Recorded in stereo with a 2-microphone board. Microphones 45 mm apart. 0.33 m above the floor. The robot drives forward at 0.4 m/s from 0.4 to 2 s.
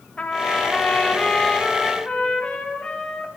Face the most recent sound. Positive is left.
turn(degrees=20)  # may be behind; listen again after turning